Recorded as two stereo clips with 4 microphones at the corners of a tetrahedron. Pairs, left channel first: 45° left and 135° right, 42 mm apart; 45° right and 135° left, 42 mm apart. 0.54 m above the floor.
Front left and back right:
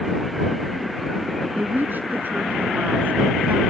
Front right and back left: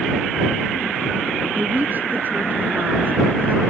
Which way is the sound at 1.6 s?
Straight behind.